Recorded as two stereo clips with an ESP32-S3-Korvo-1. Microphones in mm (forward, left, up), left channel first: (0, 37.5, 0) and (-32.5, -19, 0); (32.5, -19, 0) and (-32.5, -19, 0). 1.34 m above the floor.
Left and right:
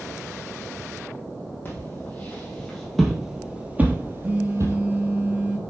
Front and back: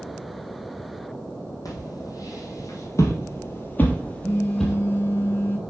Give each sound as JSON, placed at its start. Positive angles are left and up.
{"t": 1.6, "sound": "footsteps", "azimuth_deg": 10, "distance_m": 3.5}
{"t": 4.2, "sound": "a phone buzzing", "azimuth_deg": -50, "distance_m": 1.4}